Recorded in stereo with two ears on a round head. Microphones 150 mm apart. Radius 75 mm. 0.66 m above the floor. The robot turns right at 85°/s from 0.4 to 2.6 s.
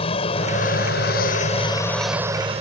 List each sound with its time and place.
0.0 s an aircraft: 40° left; by 2.6 s 135° right